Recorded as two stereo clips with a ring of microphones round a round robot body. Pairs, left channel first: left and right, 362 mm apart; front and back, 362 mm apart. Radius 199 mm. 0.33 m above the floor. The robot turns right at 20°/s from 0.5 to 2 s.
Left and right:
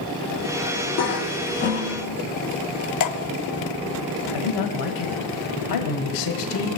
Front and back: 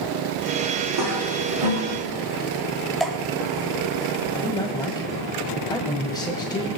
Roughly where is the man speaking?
Left.